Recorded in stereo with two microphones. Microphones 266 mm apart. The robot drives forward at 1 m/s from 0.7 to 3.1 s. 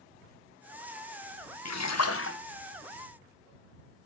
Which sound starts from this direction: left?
A splash, at 1.6 s.